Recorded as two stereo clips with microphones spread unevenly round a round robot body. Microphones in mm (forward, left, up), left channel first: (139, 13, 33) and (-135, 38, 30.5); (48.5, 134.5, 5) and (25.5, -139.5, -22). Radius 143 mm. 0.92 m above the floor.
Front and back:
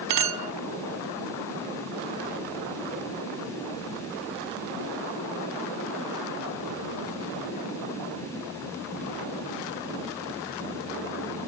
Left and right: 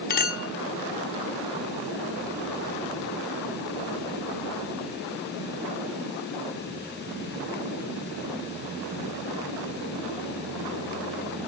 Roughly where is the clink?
Behind left.